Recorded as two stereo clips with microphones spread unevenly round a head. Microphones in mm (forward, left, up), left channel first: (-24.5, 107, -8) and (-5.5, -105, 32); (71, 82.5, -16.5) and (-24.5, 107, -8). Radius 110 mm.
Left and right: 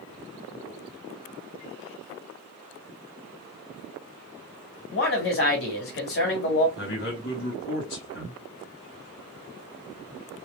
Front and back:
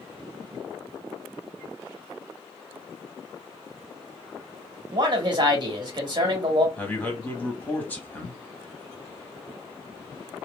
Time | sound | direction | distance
4.9 | a man speaking | 125° left | 1.6 m
6.8 | a man speaking | 55° left | 2.0 m